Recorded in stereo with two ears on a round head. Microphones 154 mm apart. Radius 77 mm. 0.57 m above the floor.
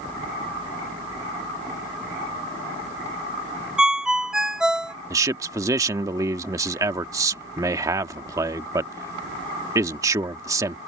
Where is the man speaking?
20° right (ahead or behind).